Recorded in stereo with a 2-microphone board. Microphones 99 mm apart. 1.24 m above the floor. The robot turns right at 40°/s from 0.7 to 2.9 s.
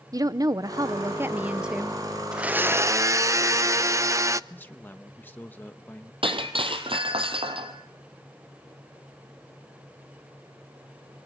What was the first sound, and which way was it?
A woman speaking, 50° right.